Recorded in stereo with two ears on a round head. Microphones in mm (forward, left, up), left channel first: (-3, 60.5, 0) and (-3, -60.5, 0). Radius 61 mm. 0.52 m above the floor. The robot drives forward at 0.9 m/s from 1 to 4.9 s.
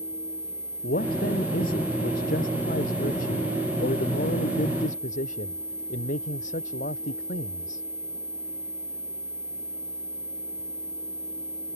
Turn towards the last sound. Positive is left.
turn(degrees=65)  # may be behind; listen again after turning